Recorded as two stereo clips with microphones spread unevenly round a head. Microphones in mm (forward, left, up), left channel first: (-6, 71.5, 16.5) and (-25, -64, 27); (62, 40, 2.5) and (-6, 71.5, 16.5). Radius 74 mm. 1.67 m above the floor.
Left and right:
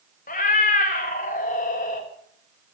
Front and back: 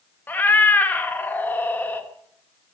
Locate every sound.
0.3 s a cat meowing: 45° left, 1.4 m